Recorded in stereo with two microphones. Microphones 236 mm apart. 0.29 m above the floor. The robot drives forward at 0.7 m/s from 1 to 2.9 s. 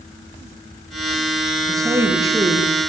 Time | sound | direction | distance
1.7 | a woman speaking | 15° right (ahead or behind) | 4 m